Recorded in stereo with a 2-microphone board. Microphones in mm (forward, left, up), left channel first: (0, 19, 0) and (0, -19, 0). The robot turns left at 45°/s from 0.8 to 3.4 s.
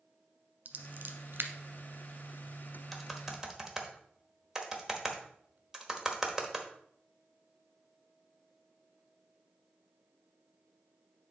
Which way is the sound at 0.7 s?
45° right (ahead or behind).